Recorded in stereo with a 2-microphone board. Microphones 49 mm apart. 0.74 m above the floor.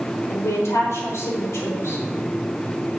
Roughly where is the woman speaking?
Left.